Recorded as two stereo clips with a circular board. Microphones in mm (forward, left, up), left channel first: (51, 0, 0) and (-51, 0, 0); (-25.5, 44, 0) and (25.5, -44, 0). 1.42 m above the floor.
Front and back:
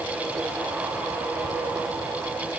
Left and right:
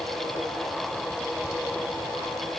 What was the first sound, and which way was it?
Only background noise.